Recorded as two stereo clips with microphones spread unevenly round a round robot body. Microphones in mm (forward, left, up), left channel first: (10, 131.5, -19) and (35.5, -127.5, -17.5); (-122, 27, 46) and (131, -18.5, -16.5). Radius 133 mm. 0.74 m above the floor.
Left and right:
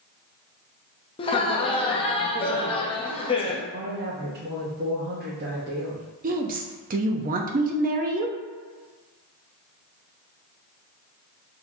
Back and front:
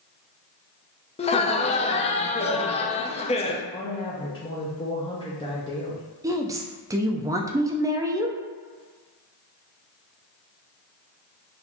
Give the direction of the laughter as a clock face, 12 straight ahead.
8 o'clock.